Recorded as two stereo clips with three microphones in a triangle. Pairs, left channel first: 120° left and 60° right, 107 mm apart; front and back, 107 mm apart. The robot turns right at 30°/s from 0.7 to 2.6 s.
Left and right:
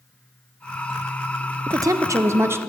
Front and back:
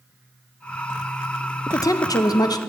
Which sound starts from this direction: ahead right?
A woman speaking, at 1.7 s.